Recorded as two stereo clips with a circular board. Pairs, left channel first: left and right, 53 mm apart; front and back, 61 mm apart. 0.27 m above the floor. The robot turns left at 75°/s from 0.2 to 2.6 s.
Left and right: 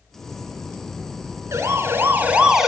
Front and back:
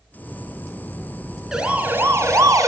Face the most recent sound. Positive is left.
turn(degrees=-170)